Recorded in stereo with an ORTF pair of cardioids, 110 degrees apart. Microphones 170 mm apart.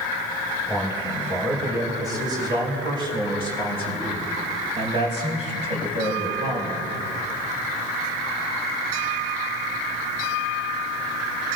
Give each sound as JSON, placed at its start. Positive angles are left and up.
{"t": 0.7, "sound": "a man speaking", "azimuth_deg": -15, "distance_m": 5.5}